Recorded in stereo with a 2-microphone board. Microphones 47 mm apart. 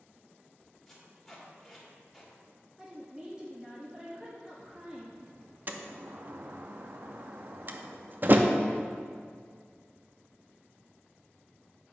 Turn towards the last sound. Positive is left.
turn(degrees=-45)  # may be behind; listen again after turning